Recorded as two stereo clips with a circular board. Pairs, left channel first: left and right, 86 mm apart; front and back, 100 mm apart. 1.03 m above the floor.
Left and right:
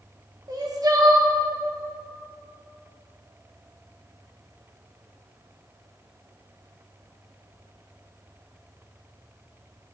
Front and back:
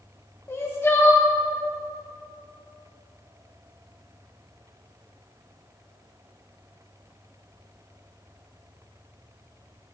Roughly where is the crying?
Ahead right.